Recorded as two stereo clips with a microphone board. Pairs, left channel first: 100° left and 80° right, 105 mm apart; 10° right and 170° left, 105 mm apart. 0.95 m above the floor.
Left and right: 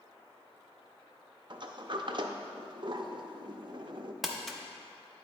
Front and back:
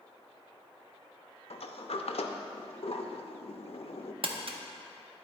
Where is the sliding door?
30° right, 0.5 m.